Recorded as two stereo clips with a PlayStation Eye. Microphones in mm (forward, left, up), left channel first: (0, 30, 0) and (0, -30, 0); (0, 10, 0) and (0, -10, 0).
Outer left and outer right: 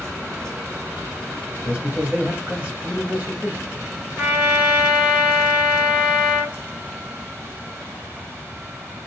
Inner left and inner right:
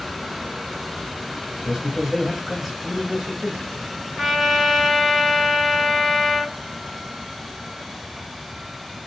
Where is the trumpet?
20° right (ahead or behind), 1.2 m.